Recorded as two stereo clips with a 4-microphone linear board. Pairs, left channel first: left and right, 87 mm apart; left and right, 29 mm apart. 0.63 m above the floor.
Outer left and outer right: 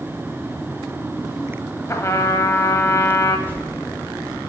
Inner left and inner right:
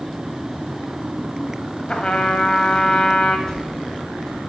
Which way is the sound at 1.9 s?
35° left (ahead or behind).